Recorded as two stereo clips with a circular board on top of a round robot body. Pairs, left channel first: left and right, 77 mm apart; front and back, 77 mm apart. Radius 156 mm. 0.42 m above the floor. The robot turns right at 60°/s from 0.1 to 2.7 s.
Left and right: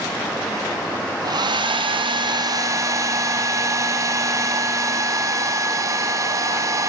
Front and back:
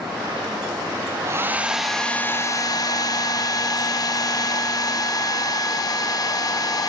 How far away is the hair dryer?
About 2 m.